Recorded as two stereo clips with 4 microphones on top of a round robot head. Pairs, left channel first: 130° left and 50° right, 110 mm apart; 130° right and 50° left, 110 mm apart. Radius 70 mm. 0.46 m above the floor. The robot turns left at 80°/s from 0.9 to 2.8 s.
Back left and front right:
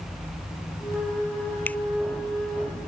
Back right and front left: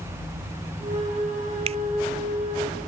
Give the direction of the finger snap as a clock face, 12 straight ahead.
10 o'clock.